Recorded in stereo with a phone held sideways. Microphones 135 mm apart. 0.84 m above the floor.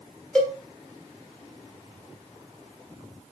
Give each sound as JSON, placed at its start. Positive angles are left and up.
{"t": 0.3, "sound": "a cowbell", "side_deg": 5, "distance_m": 1.1}